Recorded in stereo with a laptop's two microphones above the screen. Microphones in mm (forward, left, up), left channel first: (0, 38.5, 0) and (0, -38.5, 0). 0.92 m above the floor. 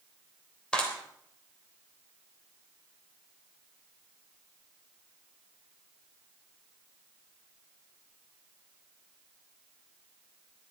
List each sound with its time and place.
0.7 s a clap: 15° left (ahead or behind), 3 m